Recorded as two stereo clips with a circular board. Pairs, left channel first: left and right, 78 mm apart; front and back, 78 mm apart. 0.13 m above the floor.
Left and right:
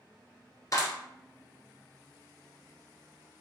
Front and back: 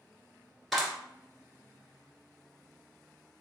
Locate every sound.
0.7 s a clap: 90° left, 1.5 m